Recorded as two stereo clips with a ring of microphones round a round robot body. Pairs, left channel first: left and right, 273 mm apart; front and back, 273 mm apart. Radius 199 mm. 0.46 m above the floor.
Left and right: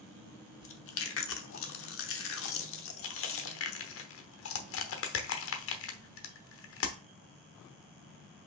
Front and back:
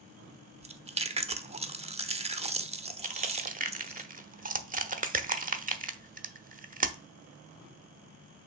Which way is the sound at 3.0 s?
120° left.